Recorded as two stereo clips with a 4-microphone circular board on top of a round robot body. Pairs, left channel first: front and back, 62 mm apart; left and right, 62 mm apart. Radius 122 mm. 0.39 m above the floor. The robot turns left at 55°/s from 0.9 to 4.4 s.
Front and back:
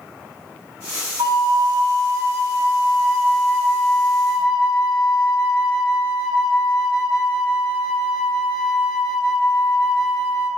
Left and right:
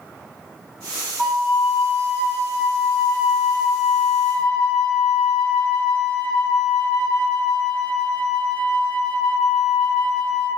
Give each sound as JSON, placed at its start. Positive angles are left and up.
{"t": 1.2, "sound": "a flute", "azimuth_deg": -175, "distance_m": 0.7}